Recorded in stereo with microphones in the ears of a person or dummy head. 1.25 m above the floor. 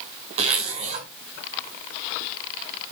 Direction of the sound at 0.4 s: 45° right (ahead or behind).